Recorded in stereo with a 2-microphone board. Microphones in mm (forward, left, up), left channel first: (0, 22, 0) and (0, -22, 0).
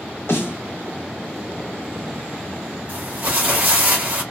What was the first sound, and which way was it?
A snare drum, 70° left (ahead or behind).